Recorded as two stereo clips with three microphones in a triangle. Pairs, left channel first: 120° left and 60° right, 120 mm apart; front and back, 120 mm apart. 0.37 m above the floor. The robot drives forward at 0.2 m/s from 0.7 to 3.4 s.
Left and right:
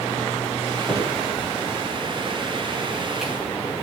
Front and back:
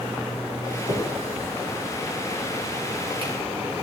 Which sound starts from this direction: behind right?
A finger snap, at 0.9 s.